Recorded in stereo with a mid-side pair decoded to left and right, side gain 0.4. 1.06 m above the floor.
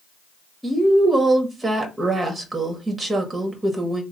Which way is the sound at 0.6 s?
30° right.